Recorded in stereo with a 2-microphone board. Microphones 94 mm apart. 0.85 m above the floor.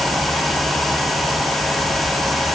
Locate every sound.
Only background noise.